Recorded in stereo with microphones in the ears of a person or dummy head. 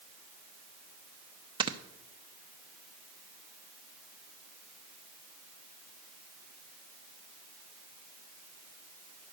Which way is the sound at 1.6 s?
20° right (ahead or behind).